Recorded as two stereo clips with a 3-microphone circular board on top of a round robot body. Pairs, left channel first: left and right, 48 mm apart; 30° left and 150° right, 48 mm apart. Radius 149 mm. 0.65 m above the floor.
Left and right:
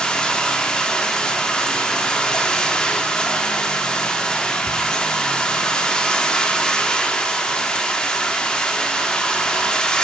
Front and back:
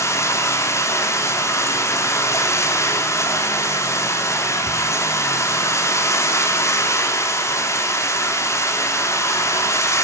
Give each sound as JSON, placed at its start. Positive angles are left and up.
{"t": 0.0, "sound": "running water", "azimuth_deg": 15, "distance_m": 1.2}